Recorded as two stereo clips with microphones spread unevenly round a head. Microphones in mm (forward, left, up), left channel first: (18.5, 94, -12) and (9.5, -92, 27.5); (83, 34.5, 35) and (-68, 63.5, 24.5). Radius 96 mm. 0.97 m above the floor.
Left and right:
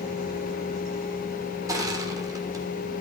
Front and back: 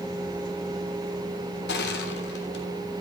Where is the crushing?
20° right, 3 m.